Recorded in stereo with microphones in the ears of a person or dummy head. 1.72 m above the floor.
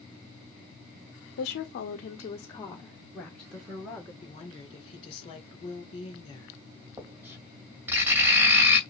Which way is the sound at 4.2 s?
30° left (ahead or behind).